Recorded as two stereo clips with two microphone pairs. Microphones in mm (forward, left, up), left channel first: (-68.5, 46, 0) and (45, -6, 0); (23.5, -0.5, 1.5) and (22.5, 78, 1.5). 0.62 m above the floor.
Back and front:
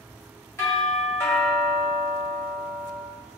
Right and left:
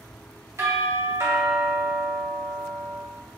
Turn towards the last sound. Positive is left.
turn(degrees=100)